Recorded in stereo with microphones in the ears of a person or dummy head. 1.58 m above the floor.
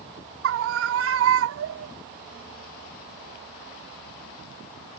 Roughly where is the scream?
Right.